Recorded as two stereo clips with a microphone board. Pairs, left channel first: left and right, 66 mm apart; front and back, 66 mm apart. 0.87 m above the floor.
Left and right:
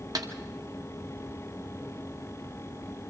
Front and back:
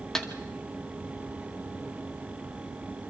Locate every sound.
0.1 s a snare drum: 80° right, 2 m